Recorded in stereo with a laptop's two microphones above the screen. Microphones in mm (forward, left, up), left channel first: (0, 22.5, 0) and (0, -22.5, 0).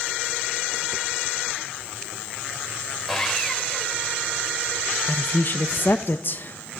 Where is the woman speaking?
50° left (ahead or behind), 0.8 m.